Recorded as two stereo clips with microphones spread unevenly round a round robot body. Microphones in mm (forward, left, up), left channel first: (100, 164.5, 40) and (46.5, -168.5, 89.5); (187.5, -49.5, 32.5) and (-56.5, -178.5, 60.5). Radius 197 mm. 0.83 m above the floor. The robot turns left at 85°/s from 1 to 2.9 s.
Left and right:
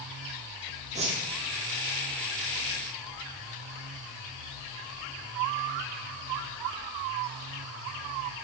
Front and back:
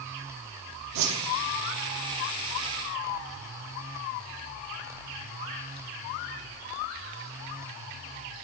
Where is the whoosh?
170° right, 0.9 m; by 1.2 s 170° left, 0.9 m.